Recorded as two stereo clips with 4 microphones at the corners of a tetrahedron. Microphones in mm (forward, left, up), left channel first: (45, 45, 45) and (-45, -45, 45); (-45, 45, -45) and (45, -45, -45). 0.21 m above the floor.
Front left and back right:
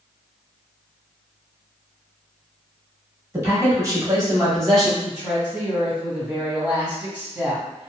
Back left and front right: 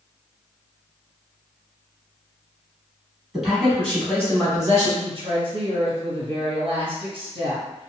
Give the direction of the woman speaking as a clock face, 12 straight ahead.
2 o'clock.